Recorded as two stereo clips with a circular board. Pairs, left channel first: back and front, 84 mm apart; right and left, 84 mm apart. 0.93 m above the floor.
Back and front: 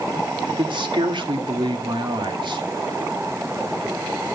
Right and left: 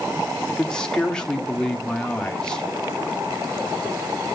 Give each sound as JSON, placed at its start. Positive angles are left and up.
{"t": 0.5, "sound": "a man speaking", "azimuth_deg": -10, "distance_m": 2.5}